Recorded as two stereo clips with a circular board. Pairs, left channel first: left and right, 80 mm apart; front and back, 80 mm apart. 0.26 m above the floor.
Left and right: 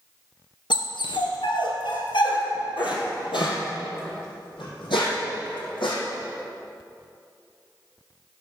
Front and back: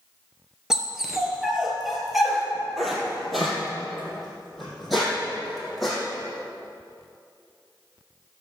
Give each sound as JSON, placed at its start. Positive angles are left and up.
{"t": 0.7, "sound": "a dog barking", "azimuth_deg": 95, "distance_m": 1.7}